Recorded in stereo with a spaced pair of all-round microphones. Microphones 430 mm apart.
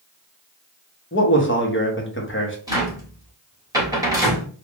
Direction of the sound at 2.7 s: 10° right (ahead or behind).